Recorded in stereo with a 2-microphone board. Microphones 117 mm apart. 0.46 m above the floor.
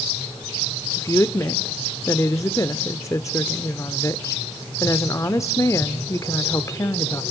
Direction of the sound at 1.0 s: 25° left (ahead or behind).